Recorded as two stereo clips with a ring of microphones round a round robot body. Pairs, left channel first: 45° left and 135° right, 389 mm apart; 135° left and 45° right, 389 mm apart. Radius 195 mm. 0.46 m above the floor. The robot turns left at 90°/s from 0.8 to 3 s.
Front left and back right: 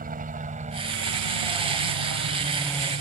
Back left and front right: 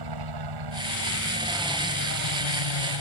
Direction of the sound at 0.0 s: 65° right.